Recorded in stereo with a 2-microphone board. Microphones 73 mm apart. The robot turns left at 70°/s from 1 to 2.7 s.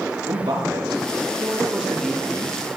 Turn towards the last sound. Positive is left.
turn(degrees=130)